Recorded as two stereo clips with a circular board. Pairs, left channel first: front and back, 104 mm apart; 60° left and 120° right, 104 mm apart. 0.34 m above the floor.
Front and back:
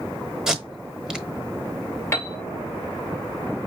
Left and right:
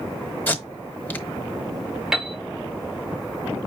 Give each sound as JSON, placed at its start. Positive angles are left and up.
{"t": 0.5, "sound": "tape being pulled", "azimuth_deg": 105, "distance_m": 0.9}
{"t": 2.1, "sound": "a piano", "azimuth_deg": -40, "distance_m": 1.5}